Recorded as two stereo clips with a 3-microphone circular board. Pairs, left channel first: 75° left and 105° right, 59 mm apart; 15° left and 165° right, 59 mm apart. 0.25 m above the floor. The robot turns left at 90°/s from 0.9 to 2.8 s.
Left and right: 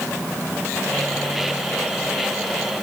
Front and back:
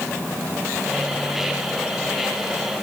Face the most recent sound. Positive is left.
No sound to turn to.